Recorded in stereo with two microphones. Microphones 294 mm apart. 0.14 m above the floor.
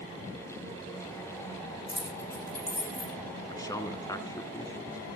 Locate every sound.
1.9 s keys jangling: 55° left (ahead or behind), 5.5 m; by 3.1 s 60° left (ahead or behind), 5.5 m
3.5 s a man speaking: 10° left (ahead or behind), 1.1 m